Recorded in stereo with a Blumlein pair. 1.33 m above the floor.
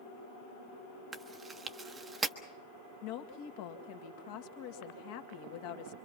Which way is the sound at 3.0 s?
45° left.